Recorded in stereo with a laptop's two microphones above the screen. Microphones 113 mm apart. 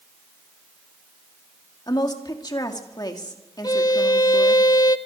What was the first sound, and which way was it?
A woman speaking, 35° left (ahead or behind).